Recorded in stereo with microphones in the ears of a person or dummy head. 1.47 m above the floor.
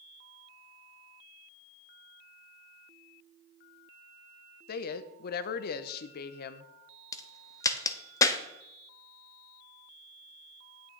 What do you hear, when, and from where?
4.7 s a woman speaking: 55° left (ahead or behind), 0.7 m
7.1 s a crack: 20° left (ahead or behind), 0.6 m